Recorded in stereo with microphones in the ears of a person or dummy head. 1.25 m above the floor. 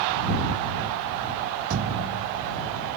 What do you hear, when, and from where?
1.7 s a thud: 65° right (ahead or behind)